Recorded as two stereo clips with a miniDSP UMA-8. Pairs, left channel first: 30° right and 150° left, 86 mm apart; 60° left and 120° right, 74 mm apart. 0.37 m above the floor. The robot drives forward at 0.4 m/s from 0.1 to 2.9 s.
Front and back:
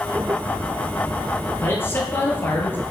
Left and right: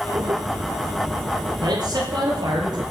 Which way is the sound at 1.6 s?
95° right.